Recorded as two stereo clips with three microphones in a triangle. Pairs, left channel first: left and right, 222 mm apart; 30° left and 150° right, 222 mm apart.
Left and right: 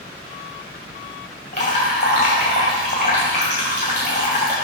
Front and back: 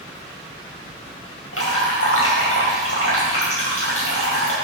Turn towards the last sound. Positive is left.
turn(degrees=35)